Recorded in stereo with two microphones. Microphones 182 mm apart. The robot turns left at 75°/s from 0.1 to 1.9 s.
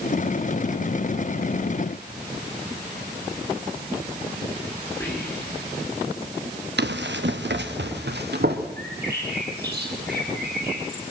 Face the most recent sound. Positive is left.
turn(degrees=-70)  # may be behind; listen again after turning